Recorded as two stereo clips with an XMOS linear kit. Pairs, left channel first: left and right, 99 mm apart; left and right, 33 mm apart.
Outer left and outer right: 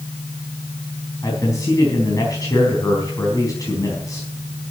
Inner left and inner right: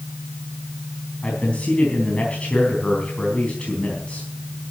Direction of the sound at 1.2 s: 35° left (ahead or behind).